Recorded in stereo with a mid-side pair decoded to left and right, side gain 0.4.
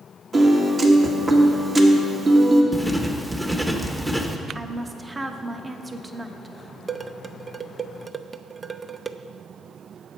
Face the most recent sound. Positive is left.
turn(degrees=-30)